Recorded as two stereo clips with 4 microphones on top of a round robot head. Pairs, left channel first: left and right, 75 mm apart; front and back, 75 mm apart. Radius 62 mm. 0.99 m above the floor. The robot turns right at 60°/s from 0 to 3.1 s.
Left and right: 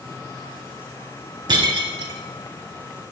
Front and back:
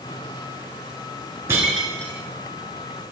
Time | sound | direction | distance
1.5 | breaking glass | 110° right | 4 m